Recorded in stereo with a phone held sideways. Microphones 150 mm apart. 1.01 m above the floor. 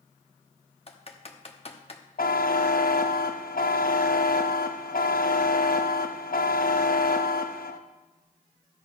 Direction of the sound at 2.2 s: 70° left (ahead or behind).